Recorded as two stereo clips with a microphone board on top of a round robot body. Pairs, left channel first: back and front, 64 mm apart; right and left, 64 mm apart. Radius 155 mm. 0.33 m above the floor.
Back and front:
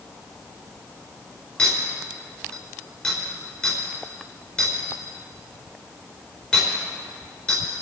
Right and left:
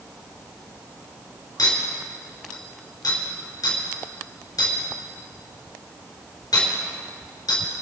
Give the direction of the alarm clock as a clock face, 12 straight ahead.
No alarm clock in this recording.